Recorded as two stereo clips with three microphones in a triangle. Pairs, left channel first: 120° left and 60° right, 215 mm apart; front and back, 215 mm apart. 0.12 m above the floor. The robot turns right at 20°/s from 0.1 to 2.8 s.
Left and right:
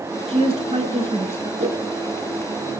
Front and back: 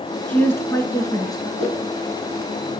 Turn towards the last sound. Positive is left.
turn(degrees=-35)